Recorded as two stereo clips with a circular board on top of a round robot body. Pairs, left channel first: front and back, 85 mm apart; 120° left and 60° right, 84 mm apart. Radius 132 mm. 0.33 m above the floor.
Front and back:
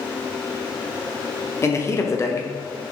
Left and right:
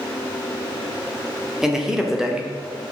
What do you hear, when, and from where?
1.6 s a man speaking: 20° left, 1.2 m